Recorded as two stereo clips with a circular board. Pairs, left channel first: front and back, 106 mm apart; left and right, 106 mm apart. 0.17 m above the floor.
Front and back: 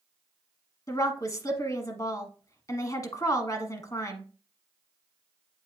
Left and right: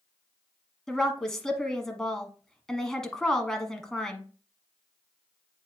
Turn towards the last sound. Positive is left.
turn(degrees=10)